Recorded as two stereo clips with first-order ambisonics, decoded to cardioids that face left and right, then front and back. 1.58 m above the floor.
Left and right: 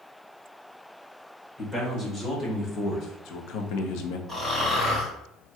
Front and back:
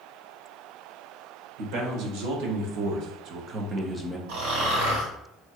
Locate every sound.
1.6 s a man speaking: 170° left, 1.3 m; by 4.2 s 90° left, 0.7 m
4.3 s snoring: 170° left, 1.7 m